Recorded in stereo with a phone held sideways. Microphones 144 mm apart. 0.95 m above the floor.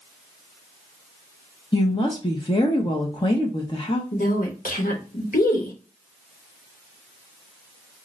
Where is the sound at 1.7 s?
35° left (ahead or behind), 0.8 m.